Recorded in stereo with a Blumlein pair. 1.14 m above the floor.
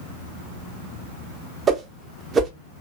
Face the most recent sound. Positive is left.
turn(degrees=-20)